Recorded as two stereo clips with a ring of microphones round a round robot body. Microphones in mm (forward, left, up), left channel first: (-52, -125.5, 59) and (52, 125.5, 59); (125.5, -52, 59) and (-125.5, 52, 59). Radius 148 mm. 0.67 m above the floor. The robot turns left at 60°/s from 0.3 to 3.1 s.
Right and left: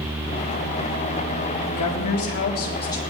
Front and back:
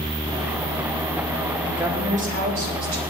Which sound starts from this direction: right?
A woman speaking, at 1.7 s.